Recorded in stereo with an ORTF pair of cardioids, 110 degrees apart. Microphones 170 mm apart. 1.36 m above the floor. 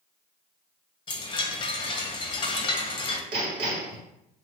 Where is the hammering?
60° right, 2 m.